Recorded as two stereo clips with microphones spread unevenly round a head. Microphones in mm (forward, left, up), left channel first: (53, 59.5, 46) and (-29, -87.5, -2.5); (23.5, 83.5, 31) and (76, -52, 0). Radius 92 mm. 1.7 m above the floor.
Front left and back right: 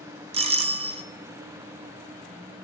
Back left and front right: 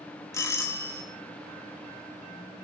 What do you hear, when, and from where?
0.3 s a doorbell: 170° right, 0.6 m